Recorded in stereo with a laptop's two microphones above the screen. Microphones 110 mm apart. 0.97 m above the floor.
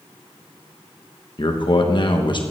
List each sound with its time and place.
1.4 s a man speaking: 45° left (ahead or behind), 1.2 m